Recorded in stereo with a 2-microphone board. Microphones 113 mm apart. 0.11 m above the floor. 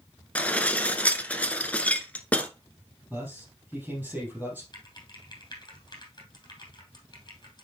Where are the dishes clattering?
15° left (ahead or behind), 1.0 m.